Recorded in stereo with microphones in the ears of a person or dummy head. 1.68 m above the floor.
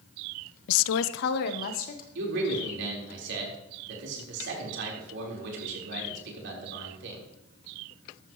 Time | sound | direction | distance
0.7 | a woman speaking | 70° left (ahead or behind) | 0.5 m
2.1 | a man speaking | 70° right (ahead or behind) | 4.5 m